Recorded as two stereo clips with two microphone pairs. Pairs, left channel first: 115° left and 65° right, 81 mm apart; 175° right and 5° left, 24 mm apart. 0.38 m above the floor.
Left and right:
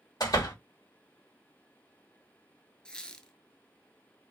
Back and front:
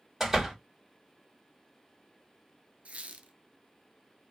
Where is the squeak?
30° left, 0.7 m.